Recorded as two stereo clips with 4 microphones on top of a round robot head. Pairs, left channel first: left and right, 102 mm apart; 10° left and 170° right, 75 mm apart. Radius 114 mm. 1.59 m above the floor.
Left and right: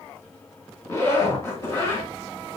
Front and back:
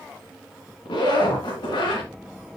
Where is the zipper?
25° left, 2.5 m.